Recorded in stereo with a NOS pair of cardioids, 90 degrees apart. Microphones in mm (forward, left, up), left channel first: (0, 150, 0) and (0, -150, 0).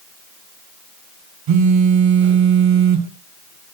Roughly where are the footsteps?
No footsteps in this recording.